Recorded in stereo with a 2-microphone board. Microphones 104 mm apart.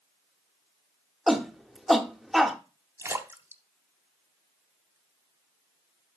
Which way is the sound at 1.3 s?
Centre (ahead or behind).